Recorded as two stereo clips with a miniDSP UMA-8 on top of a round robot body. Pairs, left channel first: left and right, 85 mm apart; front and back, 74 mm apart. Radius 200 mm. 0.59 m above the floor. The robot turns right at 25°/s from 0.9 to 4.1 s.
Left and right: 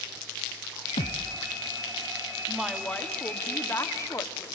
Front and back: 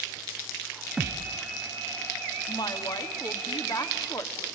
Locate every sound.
1.0 s a thud: 95° left, 0.6 m; by 1.4 s 105° left, 0.6 m
2.5 s a woman speaking: straight ahead, 2 m; by 4.5 s 40° left, 2 m